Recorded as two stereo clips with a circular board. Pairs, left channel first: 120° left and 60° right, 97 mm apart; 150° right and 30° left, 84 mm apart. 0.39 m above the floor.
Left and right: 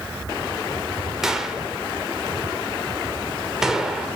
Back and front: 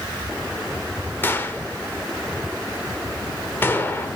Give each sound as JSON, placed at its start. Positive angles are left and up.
{"t": 1.2, "sound": "a gunshot", "azimuth_deg": -140, "distance_m": 1.2}